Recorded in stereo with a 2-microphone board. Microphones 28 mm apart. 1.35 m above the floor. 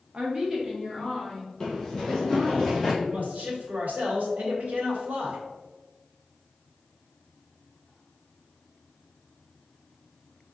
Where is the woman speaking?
40° right (ahead or behind), 0.8 m; by 2.6 s 15° left (ahead or behind), 2 m.